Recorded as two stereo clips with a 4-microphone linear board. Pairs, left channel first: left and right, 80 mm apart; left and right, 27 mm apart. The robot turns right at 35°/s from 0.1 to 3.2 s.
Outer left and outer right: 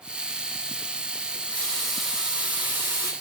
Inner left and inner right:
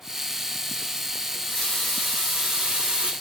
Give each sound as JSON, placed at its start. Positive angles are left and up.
{"t": 1.3, "sound": "a running tap", "azimuth_deg": 155, "distance_m": 4.5}